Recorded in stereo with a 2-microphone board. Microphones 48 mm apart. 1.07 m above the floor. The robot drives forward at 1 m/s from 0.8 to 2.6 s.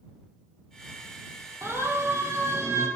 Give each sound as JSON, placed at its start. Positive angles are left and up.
{"t": 1.6, "sound": "a siren", "side_deg": -75, "distance_m": 4.0}